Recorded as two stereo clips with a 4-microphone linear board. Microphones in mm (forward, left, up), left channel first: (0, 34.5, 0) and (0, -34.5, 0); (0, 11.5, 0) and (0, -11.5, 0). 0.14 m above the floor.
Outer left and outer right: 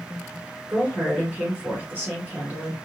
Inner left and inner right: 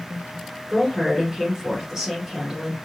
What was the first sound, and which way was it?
A woman speaking, 25° right (ahead or behind).